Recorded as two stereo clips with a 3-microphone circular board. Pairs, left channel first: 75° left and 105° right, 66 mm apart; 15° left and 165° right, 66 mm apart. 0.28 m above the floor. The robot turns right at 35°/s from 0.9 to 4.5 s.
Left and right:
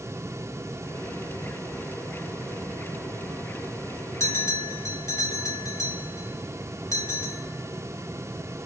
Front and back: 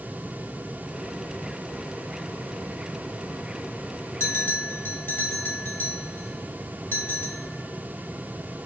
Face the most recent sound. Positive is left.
turn(degrees=60)